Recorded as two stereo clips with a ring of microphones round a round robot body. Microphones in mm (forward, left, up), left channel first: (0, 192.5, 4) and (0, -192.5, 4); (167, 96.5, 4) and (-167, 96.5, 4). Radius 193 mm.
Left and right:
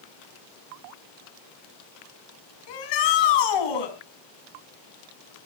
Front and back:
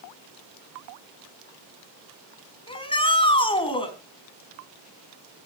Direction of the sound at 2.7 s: 75° left.